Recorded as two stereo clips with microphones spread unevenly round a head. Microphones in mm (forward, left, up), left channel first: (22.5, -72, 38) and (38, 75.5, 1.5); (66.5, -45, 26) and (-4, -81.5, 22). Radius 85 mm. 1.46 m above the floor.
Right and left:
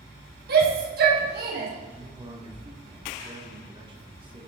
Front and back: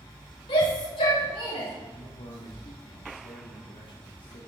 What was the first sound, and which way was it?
A shout, 65° left.